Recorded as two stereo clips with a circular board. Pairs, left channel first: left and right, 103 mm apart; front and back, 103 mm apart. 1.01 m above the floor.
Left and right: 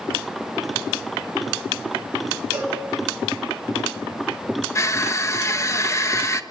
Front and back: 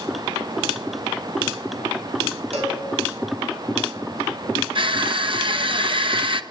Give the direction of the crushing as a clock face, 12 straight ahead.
7 o'clock.